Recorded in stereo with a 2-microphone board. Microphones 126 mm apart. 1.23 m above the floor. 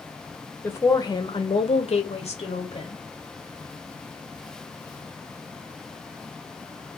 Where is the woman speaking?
20° left (ahead or behind), 0.7 m; by 3.0 s 50° left (ahead or behind), 1.0 m.